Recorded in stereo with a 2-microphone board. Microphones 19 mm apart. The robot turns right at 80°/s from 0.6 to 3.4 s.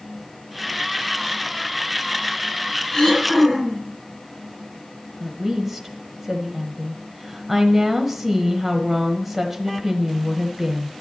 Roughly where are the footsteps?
I don't hear footsteps.